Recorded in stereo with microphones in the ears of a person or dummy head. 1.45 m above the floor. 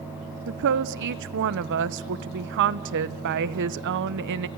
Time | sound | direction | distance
0.5 | a woman speaking | 60° right (ahead or behind) | 1.2 m